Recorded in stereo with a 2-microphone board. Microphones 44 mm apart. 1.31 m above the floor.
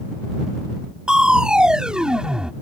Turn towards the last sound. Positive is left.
turn(degrees=-20)  # may be behind; listen again after turning